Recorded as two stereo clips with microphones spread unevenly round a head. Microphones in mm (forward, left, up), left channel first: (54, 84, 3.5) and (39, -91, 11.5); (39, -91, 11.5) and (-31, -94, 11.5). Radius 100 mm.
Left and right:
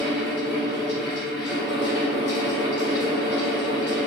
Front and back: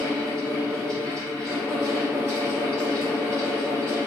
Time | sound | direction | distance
0.0 | a fan | 115° left | 0.9 m